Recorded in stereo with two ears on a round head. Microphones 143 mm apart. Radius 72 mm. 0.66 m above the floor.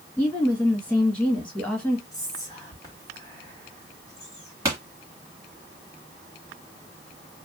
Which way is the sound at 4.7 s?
15° right (ahead or behind).